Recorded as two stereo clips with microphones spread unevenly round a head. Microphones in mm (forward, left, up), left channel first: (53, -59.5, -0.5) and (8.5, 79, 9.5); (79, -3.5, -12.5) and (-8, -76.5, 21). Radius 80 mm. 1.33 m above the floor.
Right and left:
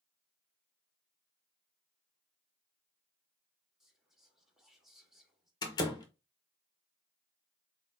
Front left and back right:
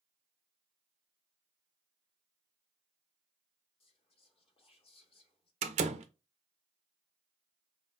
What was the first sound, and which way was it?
Whispering, 20° left.